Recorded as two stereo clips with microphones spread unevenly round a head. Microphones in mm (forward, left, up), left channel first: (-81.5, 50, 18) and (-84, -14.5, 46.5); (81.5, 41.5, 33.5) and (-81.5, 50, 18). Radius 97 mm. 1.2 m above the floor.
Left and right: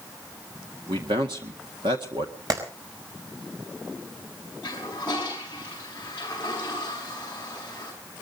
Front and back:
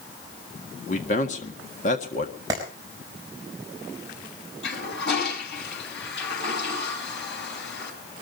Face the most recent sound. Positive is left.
turn(degrees=10)